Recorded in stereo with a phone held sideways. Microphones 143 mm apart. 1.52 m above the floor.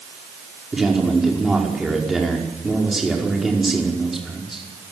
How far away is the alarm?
No alarm in this recording.